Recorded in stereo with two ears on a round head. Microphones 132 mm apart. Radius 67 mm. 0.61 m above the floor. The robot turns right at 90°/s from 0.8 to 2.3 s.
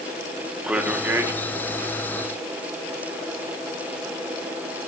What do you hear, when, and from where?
0.6 s a man speaking: 10° right (ahead or behind), 1.1 m; by 1.3 s 20° right (ahead or behind), 1.1 m